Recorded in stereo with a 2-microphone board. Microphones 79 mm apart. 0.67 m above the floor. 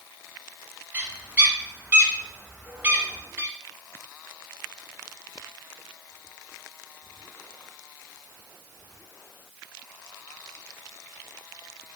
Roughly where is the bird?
Right.